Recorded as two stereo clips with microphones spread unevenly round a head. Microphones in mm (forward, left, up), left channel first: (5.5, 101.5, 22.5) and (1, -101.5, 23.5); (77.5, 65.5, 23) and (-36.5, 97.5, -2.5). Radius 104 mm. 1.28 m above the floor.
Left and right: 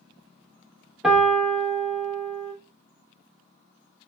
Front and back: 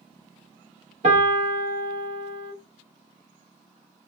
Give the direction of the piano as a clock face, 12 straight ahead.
6 o'clock.